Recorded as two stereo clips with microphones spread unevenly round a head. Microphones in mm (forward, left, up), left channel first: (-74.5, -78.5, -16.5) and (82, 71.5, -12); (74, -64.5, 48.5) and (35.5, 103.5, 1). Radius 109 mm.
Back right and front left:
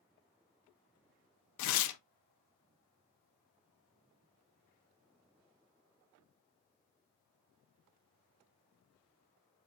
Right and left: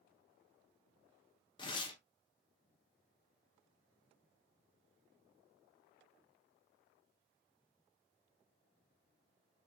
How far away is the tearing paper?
About 0.6 m.